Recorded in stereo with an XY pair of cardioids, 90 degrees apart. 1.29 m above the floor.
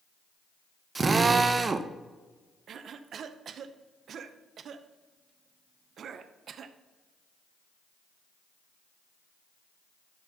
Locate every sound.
0.9 s a drill: 40° right, 0.7 m
2.7 s a cough: 65° right, 0.7 m